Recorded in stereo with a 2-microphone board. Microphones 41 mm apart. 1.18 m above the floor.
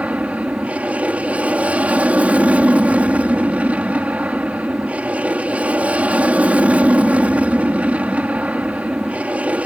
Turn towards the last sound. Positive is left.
turn(degrees=-35)  # may be behind; listen again after turning